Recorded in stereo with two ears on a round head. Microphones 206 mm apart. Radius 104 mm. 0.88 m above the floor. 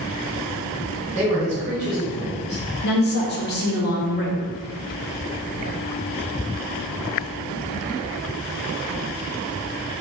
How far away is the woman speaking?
About 0.5 m.